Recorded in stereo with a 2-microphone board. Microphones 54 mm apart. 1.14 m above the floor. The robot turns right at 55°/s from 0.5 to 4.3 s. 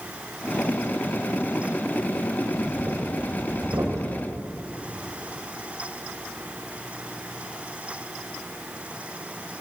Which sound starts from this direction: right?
Breathing, at 2.4 s.